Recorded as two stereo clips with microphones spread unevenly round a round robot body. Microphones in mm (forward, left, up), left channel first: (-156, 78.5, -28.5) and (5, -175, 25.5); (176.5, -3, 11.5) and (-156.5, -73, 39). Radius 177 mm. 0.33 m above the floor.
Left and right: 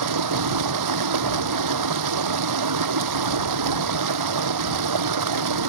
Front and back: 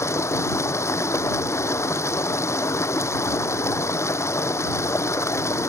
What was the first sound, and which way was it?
Running water, 70° right.